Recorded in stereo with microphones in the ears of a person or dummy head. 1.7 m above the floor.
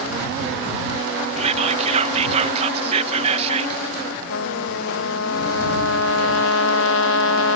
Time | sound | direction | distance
1.4 | whispering | 40° right (ahead or behind) | ?
4.3 | a trumpet | 70° left (ahead or behind) | ?